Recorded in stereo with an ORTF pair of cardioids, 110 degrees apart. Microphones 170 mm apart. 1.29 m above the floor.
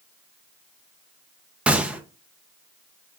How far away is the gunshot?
About 0.6 m.